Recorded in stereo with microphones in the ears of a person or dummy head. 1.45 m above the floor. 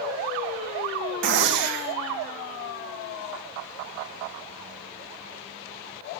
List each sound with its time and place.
1.2 s a gunshot: 65° right (ahead or behind), 2.0 m